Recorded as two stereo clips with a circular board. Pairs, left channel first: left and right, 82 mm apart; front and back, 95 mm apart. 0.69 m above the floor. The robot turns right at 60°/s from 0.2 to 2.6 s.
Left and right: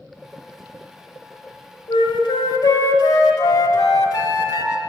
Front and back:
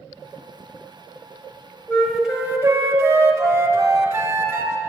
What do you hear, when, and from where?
1.9 s a flute: 75° left, 1.0 m; by 4.8 s 115° left, 1.0 m